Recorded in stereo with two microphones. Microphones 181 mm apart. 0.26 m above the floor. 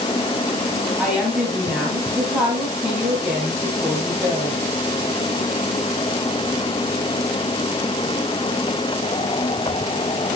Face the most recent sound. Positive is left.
turn(degrees=-5)  # may be behind; listen again after turning